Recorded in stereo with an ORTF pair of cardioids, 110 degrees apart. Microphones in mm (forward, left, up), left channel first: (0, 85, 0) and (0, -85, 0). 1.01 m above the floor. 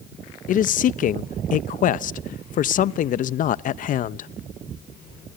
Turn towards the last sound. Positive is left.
turn(degrees=55)